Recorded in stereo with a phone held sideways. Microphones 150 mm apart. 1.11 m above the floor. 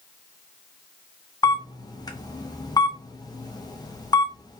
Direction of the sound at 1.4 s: 25° left (ahead or behind).